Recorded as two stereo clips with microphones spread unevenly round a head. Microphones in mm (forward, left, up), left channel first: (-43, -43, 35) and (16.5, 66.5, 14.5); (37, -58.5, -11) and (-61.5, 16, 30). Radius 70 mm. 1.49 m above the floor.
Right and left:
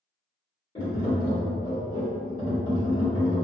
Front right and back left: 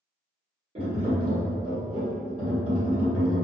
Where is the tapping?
Straight behind, 1.6 m.